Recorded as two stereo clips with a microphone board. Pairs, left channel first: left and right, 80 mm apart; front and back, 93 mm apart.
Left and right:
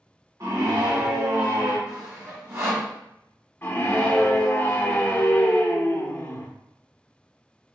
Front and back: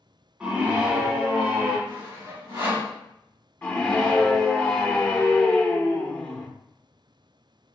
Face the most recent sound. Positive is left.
turn(degrees=60)